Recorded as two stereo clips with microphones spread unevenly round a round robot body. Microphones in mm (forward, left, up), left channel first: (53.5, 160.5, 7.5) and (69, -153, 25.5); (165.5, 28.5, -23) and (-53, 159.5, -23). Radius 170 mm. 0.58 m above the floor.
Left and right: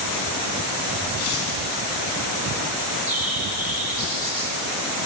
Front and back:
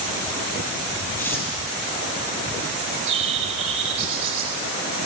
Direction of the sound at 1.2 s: 50° left.